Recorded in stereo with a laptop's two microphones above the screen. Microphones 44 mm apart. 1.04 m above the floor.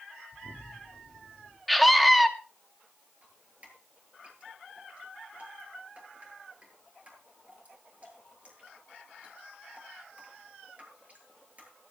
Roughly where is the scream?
Centre.